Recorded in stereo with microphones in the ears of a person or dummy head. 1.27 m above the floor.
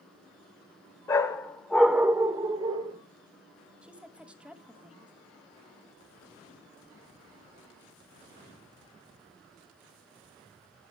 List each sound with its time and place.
1.1 s a dog barking: 20° left (ahead or behind), 1.2 m; by 3.0 s 30° right (ahead or behind), 1.5 m
3.8 s a woman speaking: 5° right (ahead or behind), 1.2 m